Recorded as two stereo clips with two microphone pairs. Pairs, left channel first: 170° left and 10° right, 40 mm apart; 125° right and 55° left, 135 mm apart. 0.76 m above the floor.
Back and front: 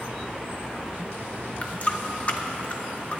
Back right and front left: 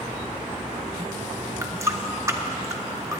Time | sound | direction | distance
1.6 | a running tap | 120° left | 0.8 m